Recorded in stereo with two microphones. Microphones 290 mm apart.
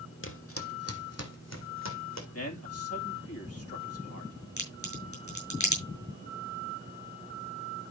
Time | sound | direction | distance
0.2 | footsteps | 45° left (ahead or behind) | 1.6 m
2.3 | a man speaking | 55° left (ahead or behind) | 2 m
4.6 | a crack | 80° left | 5 m